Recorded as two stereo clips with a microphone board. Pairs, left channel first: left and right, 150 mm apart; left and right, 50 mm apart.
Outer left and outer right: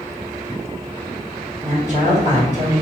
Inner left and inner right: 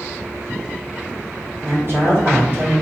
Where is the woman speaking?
50° right (ahead or behind), 1.7 m.